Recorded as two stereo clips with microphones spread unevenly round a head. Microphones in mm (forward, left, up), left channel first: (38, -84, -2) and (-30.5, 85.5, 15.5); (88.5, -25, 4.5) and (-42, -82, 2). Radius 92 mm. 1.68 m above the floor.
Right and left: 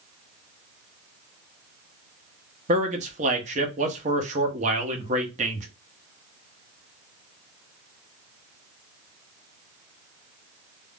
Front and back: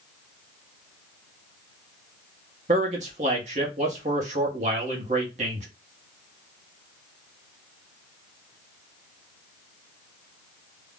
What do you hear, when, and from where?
2.7 s a man speaking: 155° left, 0.8 m